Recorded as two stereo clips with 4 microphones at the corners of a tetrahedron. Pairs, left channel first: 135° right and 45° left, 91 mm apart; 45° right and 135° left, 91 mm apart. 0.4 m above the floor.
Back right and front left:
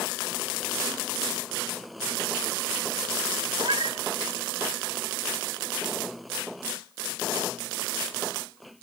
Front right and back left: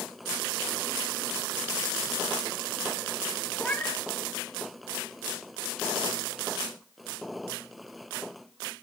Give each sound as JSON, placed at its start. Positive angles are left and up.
{"t": 3.6, "sound": "a cat meowing", "azimuth_deg": 35, "distance_m": 1.0}